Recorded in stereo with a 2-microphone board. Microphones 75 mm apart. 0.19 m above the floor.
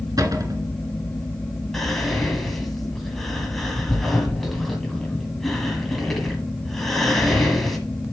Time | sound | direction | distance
0.2 | a cupboard door | 50° right (ahead or behind) | 1.4 m
1.7 | whispering | 5° left (ahead or behind) | 1.5 m